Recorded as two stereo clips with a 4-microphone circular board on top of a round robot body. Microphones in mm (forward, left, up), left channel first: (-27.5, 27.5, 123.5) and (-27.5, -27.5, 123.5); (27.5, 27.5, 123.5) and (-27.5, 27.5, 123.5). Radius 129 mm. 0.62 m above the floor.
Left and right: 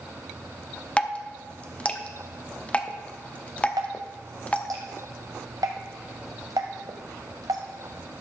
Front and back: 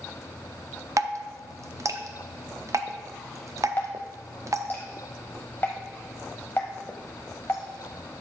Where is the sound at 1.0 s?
155° left, 0.8 m.